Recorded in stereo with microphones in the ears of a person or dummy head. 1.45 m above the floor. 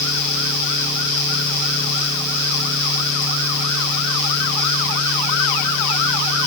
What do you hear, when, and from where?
Only background noise.